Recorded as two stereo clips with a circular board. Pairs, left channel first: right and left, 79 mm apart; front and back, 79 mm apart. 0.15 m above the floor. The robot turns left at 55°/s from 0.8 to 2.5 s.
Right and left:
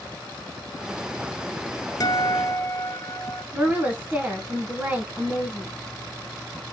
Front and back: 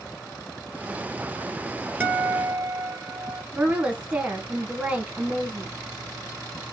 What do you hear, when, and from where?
2.0 s a guitar: 115° right, 1.4 m; by 3.4 s 145° right, 1.4 m
3.5 s a woman speaking: 125° left, 1.2 m